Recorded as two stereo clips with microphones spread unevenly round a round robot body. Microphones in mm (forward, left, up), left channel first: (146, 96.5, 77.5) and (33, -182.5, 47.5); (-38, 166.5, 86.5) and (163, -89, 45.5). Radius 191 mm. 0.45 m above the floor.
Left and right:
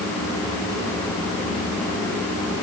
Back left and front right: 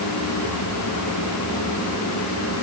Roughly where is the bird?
I don't hear a bird.